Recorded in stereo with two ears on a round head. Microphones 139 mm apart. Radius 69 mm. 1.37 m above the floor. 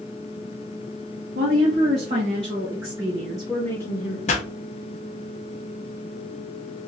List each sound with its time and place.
1.4 s a woman speaking: 55° right (ahead or behind), 1.5 m; by 4.2 s 30° left (ahead or behind), 0.9 m
4.3 s a pop: 45° left (ahead or behind), 0.7 m